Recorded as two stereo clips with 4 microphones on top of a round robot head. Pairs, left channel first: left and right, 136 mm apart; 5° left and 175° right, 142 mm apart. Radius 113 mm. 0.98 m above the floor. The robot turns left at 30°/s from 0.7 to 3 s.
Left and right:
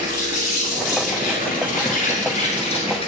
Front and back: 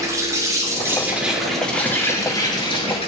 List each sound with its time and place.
0.0 s an insect: 115° left, 5.5 m; by 3.1 s 50° left, 5.5 m